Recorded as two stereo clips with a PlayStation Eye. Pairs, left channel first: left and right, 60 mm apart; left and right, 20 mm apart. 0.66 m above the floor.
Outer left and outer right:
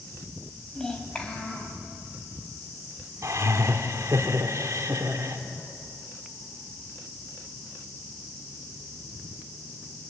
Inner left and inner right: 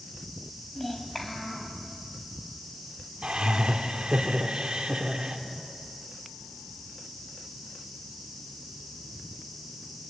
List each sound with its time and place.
0.8 s a child speaking: 10° left (ahead or behind), 3.5 m; by 1.8 s 20° left (ahead or behind), 4.5 m
3.2 s laughter: 60° right (ahead or behind), 2 m